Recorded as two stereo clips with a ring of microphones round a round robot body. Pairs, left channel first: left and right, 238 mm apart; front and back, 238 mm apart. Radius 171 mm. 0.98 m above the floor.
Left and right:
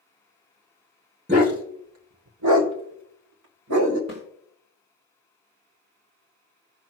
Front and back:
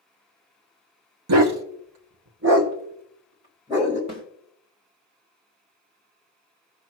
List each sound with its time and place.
1.3 s a dog barking: 160° right, 1.0 m; by 4.0 s 100° right, 2 m
4.1 s a snare drum: 140° right, 3 m